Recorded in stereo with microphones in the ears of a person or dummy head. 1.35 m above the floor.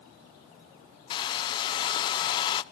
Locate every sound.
1.1 s a hair dryer: 25° left (ahead or behind), 0.5 m